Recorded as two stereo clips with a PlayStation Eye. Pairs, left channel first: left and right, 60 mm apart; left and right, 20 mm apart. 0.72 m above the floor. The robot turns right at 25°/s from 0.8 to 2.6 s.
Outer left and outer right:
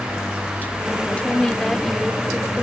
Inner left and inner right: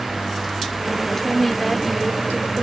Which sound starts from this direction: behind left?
A woman speaking, at 1.1 s.